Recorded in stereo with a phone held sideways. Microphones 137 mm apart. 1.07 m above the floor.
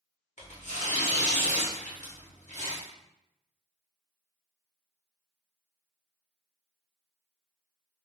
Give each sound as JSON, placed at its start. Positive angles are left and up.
{"t": 0.4, "sound": "tearing paper", "side_deg": 60, "distance_m": 0.9}